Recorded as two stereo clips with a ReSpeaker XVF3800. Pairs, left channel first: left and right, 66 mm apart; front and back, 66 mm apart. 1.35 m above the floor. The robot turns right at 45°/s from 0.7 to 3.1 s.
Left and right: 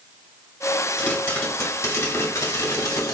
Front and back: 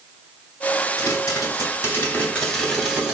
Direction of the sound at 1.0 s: 15° left.